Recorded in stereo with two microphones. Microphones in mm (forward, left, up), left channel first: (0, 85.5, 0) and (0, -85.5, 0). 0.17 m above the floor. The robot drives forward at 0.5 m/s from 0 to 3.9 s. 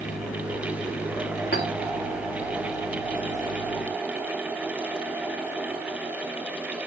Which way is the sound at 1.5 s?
70° left (ahead or behind).